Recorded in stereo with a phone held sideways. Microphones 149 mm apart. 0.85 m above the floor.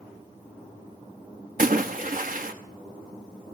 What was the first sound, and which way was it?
A splash, 65° right (ahead or behind).